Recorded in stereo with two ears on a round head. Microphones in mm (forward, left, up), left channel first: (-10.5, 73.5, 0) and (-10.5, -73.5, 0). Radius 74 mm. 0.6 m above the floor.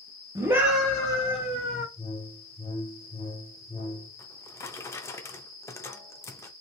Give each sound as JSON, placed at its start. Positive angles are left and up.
{"t": 0.3, "sound": "a scream", "side_deg": -20, "distance_m": 1.0}
{"t": 2.0, "sound": "a whoosh", "side_deg": 25, "distance_m": 1.7}
{"t": 4.2, "sound": "a drawer", "side_deg": 15, "distance_m": 0.5}